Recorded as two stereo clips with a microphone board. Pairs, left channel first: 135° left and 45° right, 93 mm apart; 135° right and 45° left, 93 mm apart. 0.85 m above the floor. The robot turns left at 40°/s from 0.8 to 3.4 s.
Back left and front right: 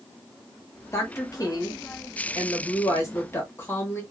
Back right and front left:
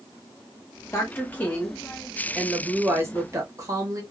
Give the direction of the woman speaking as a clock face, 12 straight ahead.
6 o'clock.